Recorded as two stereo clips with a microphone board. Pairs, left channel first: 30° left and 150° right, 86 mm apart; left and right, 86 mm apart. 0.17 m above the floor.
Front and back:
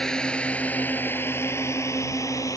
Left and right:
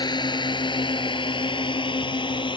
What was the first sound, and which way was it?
A drone, 110° left.